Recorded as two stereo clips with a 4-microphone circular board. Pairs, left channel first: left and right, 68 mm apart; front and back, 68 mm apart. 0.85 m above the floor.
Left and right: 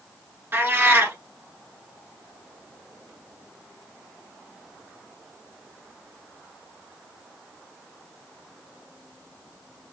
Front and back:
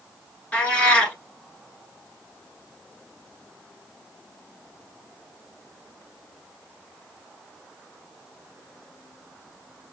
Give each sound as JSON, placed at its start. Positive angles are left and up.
{"t": 0.5, "sound": "a cat meowing", "azimuth_deg": -65, "distance_m": 0.9}